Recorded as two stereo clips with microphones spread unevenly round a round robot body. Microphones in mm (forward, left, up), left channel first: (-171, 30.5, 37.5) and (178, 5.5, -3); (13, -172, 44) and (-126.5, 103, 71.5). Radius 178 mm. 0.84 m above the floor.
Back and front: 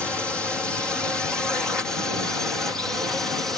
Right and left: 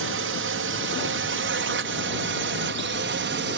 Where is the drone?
85° left; by 3.6 s 80° left.